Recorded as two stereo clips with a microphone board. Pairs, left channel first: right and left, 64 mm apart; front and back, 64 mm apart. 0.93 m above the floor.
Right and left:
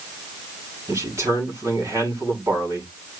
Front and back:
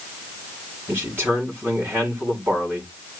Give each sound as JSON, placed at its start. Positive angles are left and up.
{"t": 0.9, "sound": "a man speaking", "azimuth_deg": 130, "distance_m": 7.5}